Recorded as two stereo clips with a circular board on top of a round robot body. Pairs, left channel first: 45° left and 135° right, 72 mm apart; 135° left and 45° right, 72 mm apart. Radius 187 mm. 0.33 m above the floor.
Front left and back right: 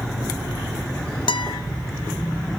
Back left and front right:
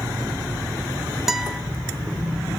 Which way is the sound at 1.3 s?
40° left.